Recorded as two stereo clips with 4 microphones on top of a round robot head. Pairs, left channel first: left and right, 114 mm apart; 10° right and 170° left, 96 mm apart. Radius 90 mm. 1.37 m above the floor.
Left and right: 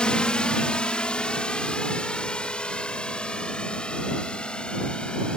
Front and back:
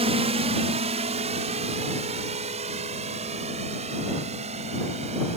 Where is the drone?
170° left.